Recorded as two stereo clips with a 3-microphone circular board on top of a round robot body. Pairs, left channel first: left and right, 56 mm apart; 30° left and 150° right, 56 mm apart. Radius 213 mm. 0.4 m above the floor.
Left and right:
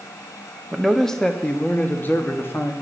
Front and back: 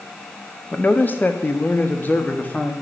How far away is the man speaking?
About 1.4 m.